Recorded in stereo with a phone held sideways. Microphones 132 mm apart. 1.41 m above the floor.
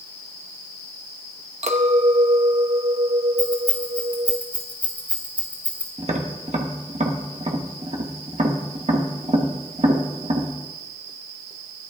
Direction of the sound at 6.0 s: 55° right (ahead or behind).